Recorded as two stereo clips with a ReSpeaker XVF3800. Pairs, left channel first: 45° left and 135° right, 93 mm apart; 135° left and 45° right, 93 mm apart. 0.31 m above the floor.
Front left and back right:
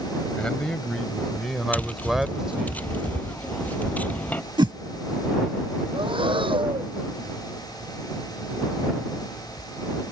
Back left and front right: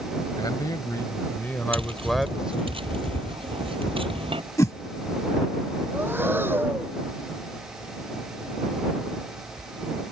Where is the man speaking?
120° left; by 2.7 s 75° right.